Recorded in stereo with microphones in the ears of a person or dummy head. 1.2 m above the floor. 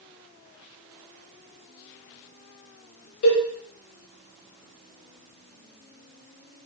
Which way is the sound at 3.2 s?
55° left (ahead or behind).